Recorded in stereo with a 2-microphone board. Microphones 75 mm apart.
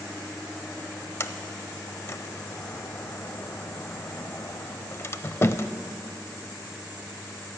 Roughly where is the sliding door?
Left.